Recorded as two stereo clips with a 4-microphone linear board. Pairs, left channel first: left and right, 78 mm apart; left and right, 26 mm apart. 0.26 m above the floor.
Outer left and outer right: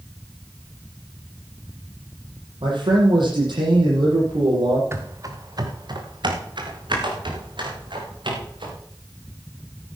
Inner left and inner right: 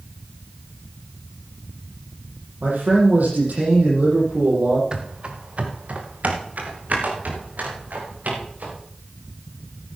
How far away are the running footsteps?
About 1.9 m.